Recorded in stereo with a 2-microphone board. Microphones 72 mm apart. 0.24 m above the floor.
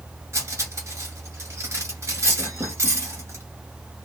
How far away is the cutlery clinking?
About 2.0 m.